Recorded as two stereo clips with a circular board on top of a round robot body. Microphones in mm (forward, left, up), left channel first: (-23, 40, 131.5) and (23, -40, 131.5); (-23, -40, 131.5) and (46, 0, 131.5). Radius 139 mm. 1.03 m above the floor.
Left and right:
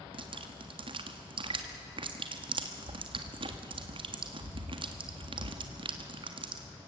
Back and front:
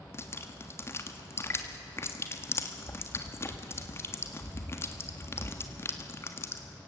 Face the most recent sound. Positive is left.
turn(degrees=-90)